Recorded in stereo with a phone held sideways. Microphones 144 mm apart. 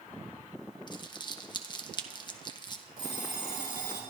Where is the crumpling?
30° left (ahead or behind), 1.0 m.